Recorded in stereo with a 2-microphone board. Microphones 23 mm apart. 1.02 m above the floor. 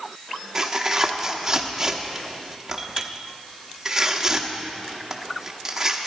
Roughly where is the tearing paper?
Right.